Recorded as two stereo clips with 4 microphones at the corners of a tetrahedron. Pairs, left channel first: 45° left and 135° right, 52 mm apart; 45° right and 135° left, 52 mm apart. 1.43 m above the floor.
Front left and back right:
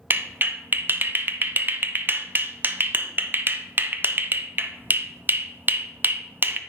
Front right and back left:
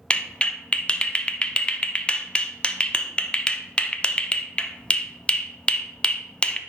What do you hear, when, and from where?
0.1 s a clap: 110° right, 0.5 m